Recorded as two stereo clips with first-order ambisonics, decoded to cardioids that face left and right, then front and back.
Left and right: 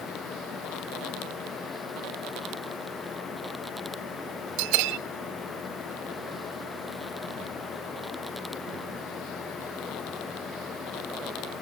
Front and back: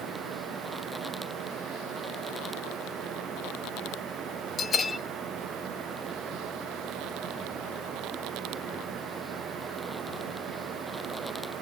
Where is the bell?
70° right, 0.6 m.